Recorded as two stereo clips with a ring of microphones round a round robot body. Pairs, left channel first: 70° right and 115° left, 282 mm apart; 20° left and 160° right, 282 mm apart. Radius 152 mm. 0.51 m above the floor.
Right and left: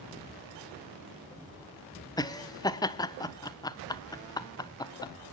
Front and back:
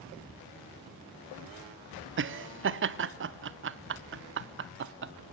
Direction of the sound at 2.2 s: 140° right.